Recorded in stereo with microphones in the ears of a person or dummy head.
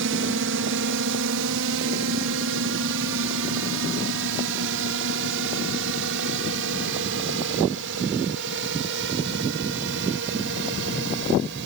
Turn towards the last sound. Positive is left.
turn(degrees=-65)  # may be behind; listen again after turning